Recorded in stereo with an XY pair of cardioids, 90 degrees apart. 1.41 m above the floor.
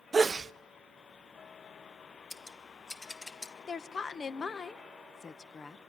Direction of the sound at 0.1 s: 35° right.